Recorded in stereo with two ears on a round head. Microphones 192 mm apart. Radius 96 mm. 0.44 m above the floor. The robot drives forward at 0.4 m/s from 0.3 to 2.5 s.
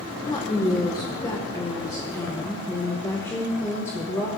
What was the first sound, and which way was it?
A woman speaking, 20° left (ahead or behind).